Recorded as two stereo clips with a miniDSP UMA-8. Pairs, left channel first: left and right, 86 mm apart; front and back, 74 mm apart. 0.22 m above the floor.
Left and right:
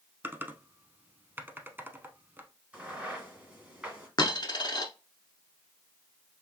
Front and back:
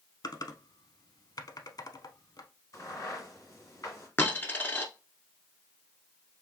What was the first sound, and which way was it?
Typing on a keyboard, 25° right.